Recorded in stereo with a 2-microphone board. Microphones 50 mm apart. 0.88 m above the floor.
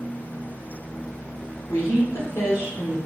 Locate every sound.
1.7 s a woman speaking: 75° left (ahead or behind), 2 m